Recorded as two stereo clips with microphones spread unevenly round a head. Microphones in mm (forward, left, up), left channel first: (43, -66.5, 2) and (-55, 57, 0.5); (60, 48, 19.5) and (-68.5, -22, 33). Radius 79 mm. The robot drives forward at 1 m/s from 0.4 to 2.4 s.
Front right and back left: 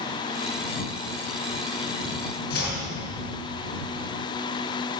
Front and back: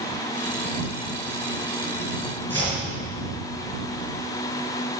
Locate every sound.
2.5 s chopping: 80° right, 5.5 m